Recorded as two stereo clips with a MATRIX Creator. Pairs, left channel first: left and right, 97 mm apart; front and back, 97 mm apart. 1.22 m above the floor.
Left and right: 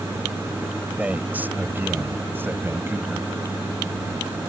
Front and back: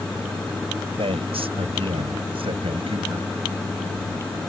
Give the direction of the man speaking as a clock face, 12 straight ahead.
5 o'clock.